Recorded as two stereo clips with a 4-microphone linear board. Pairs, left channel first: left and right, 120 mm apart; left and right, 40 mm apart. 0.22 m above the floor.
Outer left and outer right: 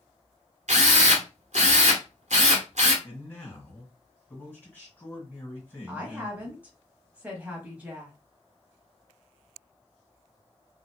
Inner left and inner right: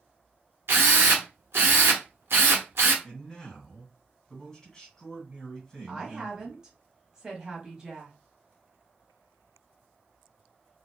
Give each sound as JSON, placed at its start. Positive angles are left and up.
{"t": 0.7, "sound": "a drill", "side_deg": -70, "distance_m": 1.0}
{"t": 3.0, "sound": "a man speaking", "side_deg": 15, "distance_m": 1.9}
{"t": 5.9, "sound": "a woman speaking", "side_deg": -10, "distance_m": 0.9}